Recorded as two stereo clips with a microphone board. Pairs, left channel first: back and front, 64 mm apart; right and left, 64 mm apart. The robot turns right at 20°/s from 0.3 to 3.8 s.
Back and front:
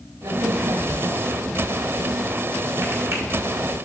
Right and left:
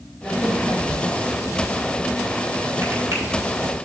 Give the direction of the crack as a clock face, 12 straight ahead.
12 o'clock.